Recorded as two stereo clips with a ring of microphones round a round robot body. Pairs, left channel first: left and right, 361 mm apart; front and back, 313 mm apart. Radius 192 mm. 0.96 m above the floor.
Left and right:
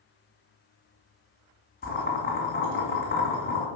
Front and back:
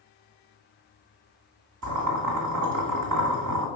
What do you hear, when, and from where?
1.8 s boiling: 155° left, 1.9 m